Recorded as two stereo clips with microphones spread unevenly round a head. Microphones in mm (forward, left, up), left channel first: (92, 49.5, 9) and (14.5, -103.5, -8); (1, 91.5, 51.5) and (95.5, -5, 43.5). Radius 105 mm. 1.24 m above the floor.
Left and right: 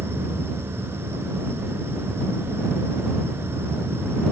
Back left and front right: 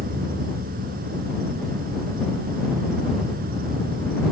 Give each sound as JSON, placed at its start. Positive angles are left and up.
{"t": 0.0, "sound": "an insect", "azimuth_deg": -40}